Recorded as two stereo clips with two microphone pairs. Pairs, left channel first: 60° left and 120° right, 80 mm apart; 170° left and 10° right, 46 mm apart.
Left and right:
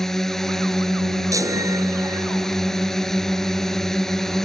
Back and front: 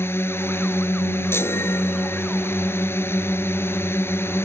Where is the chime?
165° right.